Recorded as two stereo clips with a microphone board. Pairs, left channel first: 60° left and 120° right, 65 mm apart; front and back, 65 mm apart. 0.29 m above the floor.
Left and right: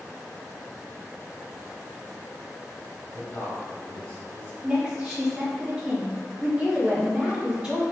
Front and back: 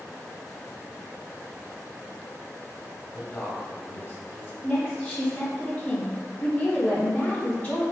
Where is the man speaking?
30° left, 1.5 m.